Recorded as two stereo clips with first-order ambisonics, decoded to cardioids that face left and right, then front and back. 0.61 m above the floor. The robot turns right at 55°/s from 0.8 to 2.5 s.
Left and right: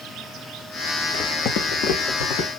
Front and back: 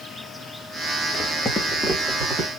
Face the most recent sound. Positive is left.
turn(degrees=125)